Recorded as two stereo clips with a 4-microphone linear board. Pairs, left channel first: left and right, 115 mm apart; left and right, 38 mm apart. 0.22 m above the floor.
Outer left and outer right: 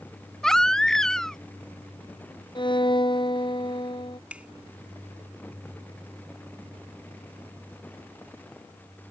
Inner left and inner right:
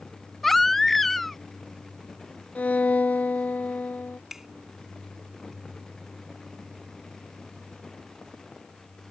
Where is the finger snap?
10° right (ahead or behind).